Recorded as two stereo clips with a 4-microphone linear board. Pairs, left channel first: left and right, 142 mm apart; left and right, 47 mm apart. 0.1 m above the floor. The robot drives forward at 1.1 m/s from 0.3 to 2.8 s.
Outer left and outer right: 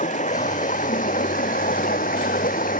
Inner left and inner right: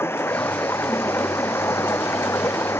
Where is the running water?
60° left (ahead or behind); by 2.8 s 75° left (ahead or behind).